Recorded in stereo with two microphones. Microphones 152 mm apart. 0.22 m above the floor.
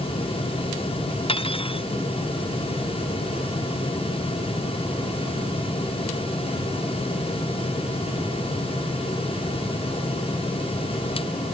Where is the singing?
I don't hear singing.